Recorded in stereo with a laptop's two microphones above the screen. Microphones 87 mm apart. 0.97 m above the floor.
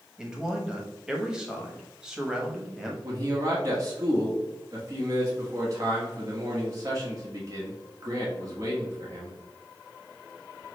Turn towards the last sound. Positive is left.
turn(degrees=-40)  # may be behind; listen again after turning